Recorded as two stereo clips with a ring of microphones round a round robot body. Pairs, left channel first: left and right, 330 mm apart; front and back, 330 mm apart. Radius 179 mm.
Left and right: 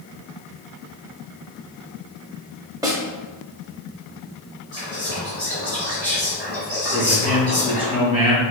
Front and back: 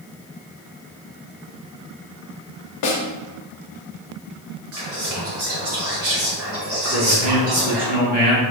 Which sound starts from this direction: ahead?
A snare drum, at 2.8 s.